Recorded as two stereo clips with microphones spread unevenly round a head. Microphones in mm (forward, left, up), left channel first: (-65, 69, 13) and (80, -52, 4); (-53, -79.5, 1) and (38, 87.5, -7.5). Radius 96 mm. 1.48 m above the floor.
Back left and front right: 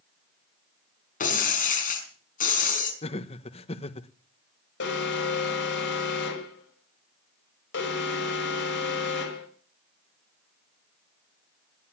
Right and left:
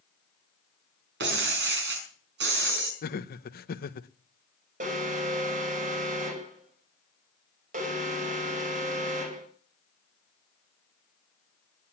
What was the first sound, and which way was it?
Breaking glass, 95° left.